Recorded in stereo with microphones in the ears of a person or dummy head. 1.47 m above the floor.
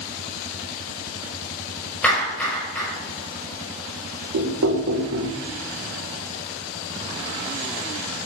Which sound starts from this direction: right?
Knocking, at 4.3 s.